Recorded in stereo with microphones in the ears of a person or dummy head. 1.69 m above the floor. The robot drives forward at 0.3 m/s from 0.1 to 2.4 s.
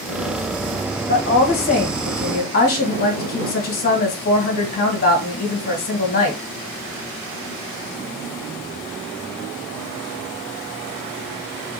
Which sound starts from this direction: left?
A woman speaking, at 1.1 s.